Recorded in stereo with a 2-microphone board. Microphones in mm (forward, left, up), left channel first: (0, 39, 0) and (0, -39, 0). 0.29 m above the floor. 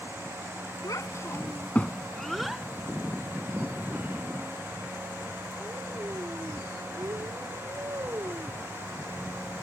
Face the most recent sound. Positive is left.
turn(degrees=-40)  # may be behind; listen again after turning